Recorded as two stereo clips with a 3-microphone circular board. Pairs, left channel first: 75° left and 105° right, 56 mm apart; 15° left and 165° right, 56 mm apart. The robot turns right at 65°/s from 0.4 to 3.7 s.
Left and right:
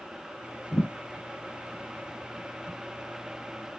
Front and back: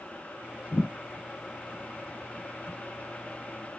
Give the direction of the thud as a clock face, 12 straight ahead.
10 o'clock.